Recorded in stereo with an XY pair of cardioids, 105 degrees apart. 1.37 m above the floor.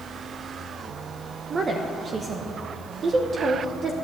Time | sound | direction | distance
1.5 | a woman speaking | 45° right | 0.9 m